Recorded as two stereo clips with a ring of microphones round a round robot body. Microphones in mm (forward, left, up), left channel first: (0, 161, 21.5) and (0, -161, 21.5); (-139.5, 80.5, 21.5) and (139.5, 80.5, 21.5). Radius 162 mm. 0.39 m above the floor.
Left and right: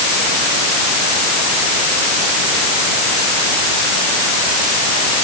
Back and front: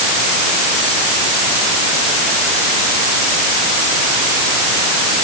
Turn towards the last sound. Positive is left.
No sound to turn to.